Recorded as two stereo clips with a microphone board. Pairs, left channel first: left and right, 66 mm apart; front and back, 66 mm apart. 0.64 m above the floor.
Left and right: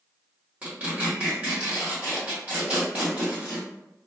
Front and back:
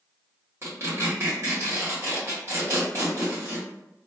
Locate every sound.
0.6 s tearing paper: 150° right, 1.5 m